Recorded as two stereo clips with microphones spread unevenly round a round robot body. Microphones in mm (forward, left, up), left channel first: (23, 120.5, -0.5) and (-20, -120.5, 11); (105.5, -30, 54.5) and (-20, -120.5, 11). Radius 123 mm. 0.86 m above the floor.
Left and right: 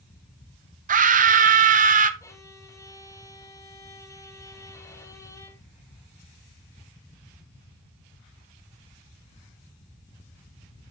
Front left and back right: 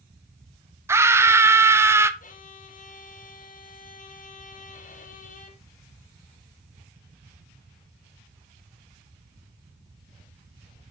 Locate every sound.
0.9 s a scream: 130° right, 0.7 m
2.2 s a violin: 10° left, 1.1 m